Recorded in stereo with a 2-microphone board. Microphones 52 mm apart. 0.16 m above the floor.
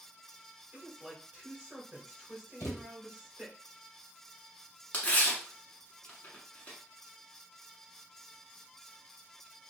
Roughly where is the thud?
Left.